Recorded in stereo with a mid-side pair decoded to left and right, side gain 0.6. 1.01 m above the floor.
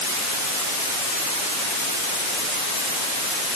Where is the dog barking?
No dog barking in this recording.